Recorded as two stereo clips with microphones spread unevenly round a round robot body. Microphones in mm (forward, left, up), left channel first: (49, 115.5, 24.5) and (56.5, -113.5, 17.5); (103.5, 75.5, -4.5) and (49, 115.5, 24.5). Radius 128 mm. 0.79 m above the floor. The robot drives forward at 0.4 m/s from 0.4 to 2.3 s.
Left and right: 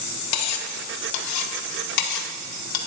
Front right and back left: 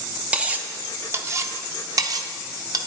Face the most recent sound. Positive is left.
turn(degrees=115)